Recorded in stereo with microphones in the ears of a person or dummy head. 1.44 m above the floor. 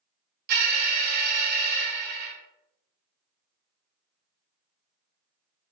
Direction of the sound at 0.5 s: 45° right (ahead or behind).